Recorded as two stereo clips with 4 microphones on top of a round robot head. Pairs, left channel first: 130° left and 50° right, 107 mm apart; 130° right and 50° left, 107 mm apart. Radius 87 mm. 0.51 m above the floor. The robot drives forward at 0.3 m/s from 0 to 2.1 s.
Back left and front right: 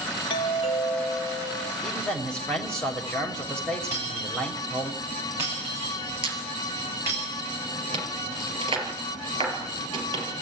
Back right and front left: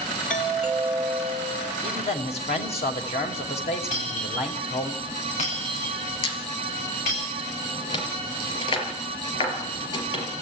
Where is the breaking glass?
115° right, 9 m.